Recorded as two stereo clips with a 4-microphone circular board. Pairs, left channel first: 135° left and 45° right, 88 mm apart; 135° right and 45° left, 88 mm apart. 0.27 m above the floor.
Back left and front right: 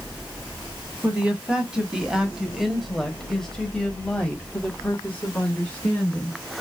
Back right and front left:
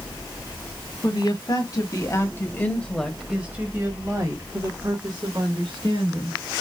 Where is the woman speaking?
120° right, 2 m; by 6.4 s 65° left, 3 m.